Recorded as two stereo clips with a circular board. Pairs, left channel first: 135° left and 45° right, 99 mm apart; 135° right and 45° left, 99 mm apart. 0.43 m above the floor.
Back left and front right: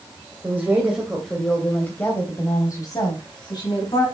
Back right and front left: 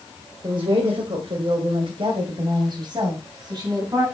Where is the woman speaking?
20° left, 2.0 m; by 4.0 s 95° left, 3.5 m.